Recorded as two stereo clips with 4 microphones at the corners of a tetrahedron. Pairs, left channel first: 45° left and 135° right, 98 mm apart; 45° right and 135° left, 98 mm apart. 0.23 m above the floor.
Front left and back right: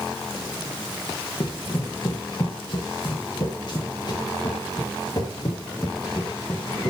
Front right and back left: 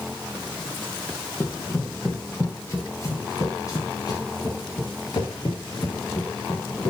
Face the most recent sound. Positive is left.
turn(degrees=-5)